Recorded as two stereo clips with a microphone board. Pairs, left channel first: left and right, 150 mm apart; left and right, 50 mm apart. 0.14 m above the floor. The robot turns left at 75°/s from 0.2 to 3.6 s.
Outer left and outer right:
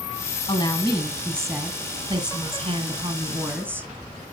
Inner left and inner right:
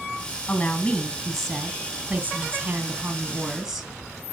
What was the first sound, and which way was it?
A woman speaking, 75° left.